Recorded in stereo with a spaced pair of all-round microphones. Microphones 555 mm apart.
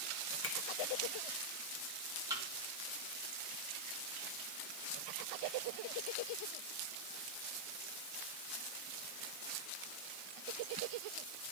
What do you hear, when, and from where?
0.4 s a finger snap: 25° left (ahead or behind), 0.9 m
2.3 s a thud: 5° right (ahead or behind), 2 m